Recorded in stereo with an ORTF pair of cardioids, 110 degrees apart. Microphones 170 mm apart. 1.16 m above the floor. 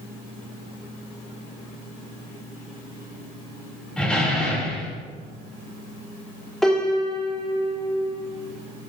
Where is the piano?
Straight ahead, 1.6 m.